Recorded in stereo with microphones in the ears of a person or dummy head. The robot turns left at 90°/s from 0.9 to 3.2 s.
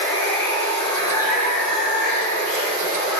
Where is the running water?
155° left, 1.7 m; by 3.2 s 50° right, 1.7 m.